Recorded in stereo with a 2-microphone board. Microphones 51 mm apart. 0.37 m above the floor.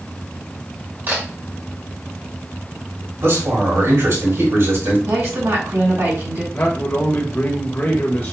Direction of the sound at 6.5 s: 35° left (ahead or behind).